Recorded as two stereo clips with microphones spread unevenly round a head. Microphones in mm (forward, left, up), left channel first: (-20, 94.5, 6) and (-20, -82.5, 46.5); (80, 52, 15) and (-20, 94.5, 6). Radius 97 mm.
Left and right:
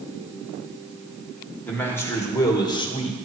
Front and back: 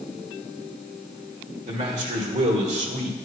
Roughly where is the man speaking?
Behind.